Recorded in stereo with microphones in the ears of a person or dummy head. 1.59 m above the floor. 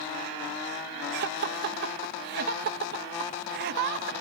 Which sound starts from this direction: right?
Laughter, at 1.1 s.